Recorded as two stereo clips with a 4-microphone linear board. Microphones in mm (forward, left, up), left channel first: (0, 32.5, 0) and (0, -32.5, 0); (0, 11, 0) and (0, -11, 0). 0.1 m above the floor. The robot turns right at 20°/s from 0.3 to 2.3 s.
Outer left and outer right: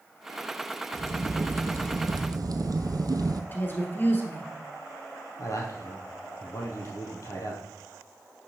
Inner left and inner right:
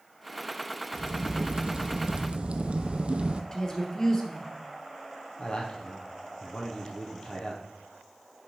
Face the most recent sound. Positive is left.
turn(degrees=55)  # may be behind; listen again after turning